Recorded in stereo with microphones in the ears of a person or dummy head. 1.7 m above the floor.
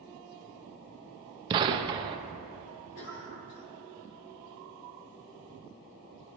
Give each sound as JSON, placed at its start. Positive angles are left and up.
{"t": 1.5, "sound": "a gunshot", "side_deg": -25, "distance_m": 0.7}
{"t": 3.0, "sound": "a cough", "side_deg": 70, "distance_m": 2.5}